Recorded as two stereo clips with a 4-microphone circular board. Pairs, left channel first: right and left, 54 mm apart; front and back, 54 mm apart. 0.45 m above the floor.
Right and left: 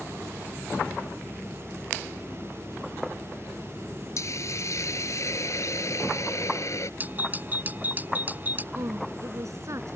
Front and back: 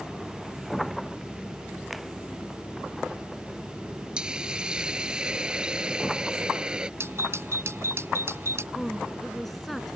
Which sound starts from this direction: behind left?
A doorbell, at 7.0 s.